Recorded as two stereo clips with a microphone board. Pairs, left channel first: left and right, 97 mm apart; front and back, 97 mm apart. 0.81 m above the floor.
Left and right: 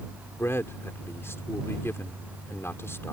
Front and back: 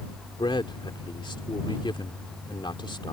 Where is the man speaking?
30° left.